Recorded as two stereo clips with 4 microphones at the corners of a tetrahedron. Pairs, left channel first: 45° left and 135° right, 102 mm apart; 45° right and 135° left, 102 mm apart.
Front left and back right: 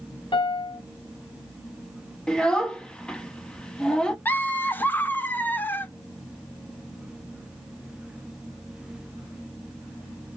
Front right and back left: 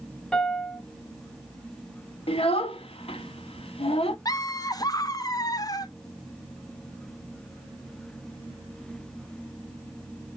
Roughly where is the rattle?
No rattle in this recording.